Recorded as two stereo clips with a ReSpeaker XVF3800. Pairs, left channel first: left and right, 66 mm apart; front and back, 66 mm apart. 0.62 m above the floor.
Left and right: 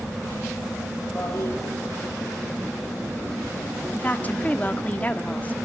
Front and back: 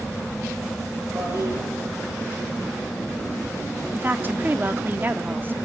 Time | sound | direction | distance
1.1 | a toilet flushing | 145° left | 5.5 m
3.9 | a woman speaking | 140° left | 1.5 m